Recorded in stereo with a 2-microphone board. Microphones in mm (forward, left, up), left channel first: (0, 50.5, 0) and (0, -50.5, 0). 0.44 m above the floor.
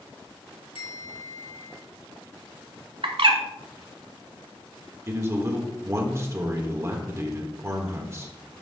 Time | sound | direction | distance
0.8 | a bell | 65° left (ahead or behind) | 2.5 m
3.0 | a bird | 65° right (ahead or behind) | 1.1 m
5.1 | a man speaking | 30° right (ahead or behind) | 1.3 m